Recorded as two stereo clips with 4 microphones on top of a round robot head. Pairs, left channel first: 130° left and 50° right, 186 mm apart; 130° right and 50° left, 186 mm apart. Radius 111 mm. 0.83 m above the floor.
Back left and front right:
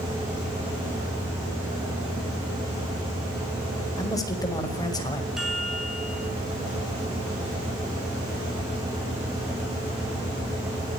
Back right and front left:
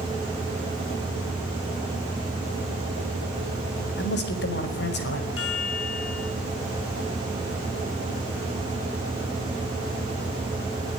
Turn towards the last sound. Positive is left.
turn(degrees=-135)